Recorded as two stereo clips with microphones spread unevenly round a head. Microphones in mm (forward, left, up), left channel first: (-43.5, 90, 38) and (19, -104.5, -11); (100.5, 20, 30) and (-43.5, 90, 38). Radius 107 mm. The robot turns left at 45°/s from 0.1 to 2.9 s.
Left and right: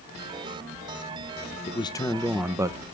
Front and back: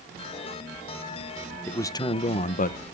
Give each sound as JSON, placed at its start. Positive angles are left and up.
{"t": 1.7, "sound": "a man speaking", "azimuth_deg": 55, "distance_m": 0.9}